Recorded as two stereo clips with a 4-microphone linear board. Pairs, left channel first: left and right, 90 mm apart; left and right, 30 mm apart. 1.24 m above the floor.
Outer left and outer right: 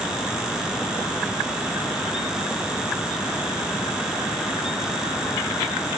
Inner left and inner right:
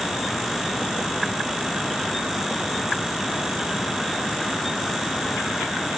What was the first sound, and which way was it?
Only background noise.